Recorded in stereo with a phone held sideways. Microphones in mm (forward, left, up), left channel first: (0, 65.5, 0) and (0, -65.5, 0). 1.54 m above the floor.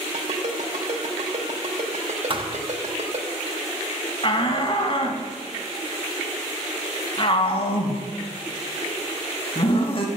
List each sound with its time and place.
0.1 s a ringtone: 60° right (ahead or behind), 3 m
2.3 s a thud: 40° right (ahead or behind), 1.1 m
4.2 s a shout: 45° left (ahead or behind), 2.5 m